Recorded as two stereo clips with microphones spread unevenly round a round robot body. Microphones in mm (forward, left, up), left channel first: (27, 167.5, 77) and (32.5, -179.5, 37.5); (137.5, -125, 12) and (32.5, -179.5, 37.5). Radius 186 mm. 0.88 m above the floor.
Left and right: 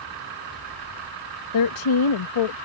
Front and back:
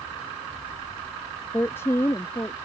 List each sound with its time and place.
1.5 s a woman speaking: 100° left; by 2.6 s 95° left